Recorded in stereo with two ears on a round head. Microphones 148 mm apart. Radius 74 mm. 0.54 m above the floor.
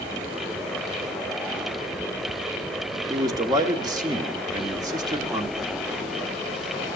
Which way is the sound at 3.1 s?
25° right (ahead or behind).